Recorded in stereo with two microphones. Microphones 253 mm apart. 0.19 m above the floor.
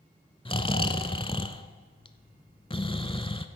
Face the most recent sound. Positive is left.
turn(degrees=20)  # may be behind; listen again after turning